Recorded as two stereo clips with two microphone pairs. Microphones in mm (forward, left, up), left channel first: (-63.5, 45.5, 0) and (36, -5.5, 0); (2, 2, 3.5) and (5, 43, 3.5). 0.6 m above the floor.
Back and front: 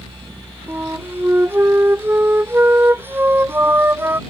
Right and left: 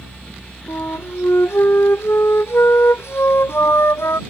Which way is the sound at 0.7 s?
100° right.